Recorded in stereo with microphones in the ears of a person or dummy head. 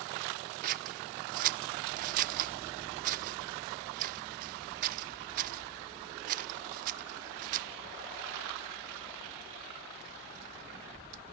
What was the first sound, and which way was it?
Scissors, 50° right (ahead or behind).